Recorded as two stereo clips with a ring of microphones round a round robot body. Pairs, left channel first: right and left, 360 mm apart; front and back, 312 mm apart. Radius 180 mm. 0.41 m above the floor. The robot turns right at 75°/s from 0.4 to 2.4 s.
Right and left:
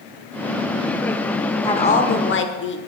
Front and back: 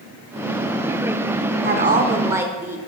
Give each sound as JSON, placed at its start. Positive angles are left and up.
{"t": 1.6, "sound": "a woman speaking", "azimuth_deg": -160, "distance_m": 1.0}